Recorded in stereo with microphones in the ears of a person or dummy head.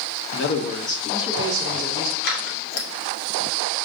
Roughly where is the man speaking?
Left.